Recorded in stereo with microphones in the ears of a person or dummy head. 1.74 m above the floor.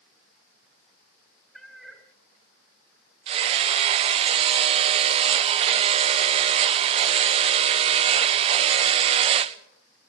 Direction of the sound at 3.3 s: 35° right (ahead or behind).